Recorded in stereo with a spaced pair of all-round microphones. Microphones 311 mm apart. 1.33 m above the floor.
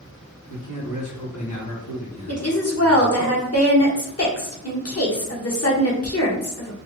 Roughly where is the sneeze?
No sneeze in this recording.